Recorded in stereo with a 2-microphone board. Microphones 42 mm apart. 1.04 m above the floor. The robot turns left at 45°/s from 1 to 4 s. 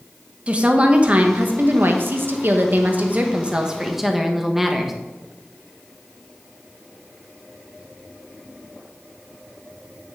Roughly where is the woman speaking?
Ahead right.